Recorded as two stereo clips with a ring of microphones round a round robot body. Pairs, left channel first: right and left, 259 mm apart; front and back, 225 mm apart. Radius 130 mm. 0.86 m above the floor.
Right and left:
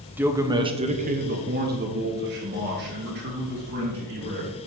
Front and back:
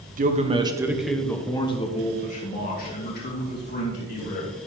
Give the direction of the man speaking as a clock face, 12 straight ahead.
6 o'clock.